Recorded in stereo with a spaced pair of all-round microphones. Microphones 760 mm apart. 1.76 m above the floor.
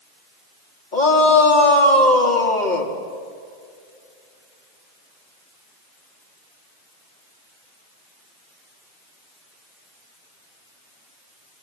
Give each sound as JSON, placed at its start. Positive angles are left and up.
{"t": 0.9, "sound": "a shout", "side_deg": 65, "distance_m": 3.5}